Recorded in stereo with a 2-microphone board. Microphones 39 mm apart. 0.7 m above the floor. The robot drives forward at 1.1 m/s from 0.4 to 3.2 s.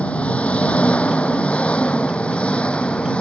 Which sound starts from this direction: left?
An engine running, at 0.0 s.